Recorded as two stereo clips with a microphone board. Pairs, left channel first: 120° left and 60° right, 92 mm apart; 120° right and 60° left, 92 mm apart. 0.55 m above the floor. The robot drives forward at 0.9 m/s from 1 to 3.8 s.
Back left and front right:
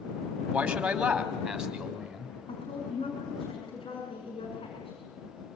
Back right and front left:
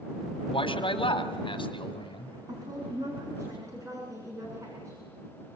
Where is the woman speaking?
105° left, 6.5 m; by 5.0 s 115° left, 7 m.